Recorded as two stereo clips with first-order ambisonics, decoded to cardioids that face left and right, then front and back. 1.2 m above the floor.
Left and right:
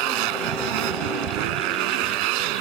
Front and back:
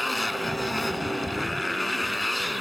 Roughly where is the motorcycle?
Right.